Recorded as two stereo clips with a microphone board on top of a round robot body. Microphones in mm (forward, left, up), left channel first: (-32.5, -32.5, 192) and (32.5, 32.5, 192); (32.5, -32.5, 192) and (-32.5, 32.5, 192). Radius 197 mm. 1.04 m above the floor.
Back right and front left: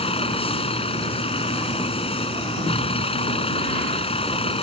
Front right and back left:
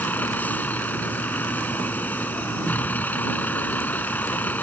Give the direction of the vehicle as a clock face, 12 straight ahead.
4 o'clock.